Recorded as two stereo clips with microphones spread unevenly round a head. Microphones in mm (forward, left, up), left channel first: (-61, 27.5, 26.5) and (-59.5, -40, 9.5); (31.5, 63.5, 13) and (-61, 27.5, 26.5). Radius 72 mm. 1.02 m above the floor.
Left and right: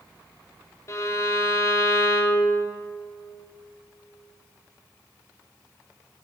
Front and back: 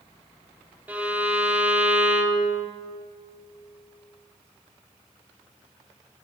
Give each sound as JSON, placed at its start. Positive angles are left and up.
{"t": 0.9, "sound": "a violin", "azimuth_deg": 130, "distance_m": 1.1}